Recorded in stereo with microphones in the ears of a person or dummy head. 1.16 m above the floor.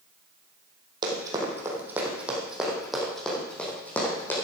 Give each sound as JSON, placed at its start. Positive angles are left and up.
{"t": 1.0, "sound": "running footsteps", "side_deg": -25, "distance_m": 3.0}